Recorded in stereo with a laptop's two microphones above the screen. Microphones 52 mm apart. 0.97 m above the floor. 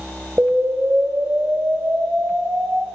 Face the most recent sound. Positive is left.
turn(degrees=-45)  # may be behind; listen again after turning